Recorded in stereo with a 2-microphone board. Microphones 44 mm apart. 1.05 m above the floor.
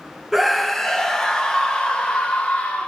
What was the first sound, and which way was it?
A scream, 5° right (ahead or behind).